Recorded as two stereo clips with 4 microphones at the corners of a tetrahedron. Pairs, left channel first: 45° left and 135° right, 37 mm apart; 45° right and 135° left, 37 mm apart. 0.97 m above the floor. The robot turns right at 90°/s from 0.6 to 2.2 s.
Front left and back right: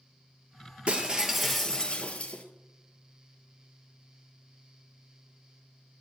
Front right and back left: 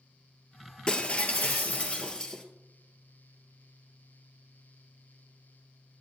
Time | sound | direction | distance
0.9 | breaking glass | 100° right | 1.2 m